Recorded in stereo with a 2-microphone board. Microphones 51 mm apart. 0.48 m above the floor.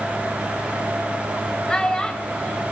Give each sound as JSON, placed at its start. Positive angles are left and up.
{"t": 1.7, "sound": "a child speaking", "side_deg": 15, "distance_m": 1.2}